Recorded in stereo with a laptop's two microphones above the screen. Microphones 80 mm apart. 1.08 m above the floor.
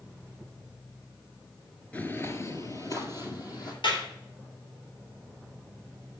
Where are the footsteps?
15° left (ahead or behind), 1.0 m; by 3.7 s 50° left (ahead or behind), 3 m.